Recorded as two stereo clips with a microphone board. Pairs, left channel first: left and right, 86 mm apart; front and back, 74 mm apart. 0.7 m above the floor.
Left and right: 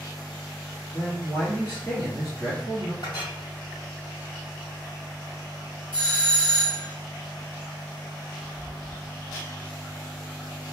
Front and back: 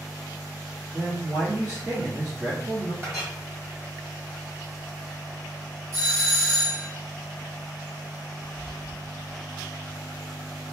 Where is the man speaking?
165° left, 1.0 m.